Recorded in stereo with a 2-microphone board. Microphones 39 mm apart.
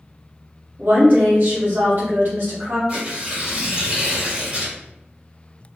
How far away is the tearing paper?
About 1.4 m.